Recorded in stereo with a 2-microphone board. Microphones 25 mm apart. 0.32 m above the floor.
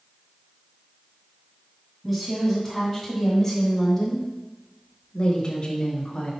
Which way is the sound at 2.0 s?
10° right (ahead or behind).